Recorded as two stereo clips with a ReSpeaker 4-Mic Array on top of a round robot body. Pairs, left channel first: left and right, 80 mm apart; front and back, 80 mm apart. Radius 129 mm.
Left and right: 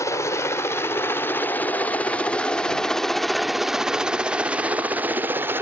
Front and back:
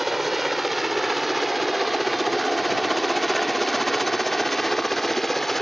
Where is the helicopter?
95° left; by 5.6 s 85° right.